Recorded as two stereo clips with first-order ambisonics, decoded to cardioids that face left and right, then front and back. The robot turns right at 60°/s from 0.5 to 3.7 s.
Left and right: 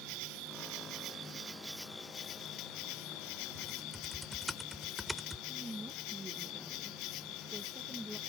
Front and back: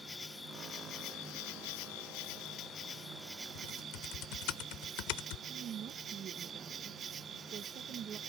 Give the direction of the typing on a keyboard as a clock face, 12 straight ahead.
12 o'clock.